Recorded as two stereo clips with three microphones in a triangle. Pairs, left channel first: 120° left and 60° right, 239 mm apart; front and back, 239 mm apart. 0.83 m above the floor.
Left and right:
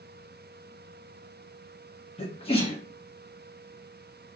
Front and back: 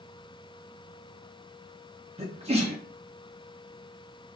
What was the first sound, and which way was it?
A sneeze, 155° left.